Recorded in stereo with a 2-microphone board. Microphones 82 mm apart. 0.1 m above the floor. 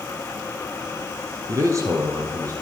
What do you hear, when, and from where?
1.5 s a man speaking: 40° right (ahead or behind), 2.0 m